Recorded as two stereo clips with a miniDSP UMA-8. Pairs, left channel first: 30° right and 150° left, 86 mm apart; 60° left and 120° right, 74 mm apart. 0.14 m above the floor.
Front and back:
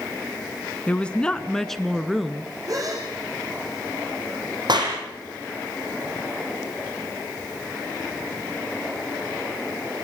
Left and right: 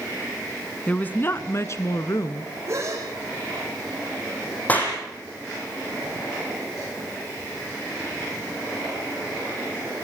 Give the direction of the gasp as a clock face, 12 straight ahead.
6 o'clock.